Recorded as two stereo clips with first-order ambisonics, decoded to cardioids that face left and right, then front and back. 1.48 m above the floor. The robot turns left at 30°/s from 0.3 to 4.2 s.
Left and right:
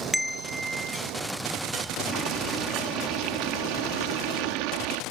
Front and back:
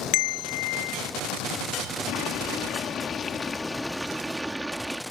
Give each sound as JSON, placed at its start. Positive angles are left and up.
{"t": 0.1, "sound": "a bell", "azimuth_deg": 5}
{"t": 2.1, "sound": "boiling", "azimuth_deg": -30}